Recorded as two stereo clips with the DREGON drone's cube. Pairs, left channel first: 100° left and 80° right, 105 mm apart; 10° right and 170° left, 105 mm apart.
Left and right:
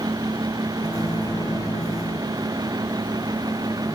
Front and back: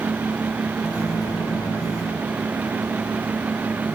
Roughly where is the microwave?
Ahead left.